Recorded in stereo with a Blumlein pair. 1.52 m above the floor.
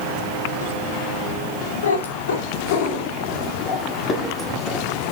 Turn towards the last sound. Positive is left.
turn(degrees=-5)